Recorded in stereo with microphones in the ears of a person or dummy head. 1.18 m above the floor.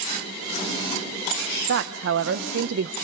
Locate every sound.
1.7 s a woman speaking: 70° right (ahead or behind), 0.6 m